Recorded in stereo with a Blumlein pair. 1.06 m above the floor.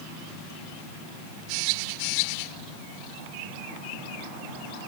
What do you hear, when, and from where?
Only background noise.